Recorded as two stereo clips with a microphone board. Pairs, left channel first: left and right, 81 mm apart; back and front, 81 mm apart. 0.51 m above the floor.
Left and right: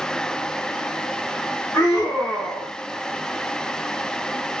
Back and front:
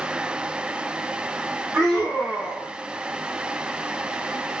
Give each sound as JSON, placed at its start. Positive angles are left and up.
{"t": 1.7, "sound": "a scream", "azimuth_deg": 75, "distance_m": 1.9}